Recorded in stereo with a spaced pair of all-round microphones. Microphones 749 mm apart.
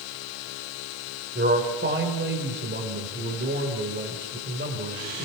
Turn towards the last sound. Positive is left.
turn(degrees=-15)  # may be behind; listen again after turning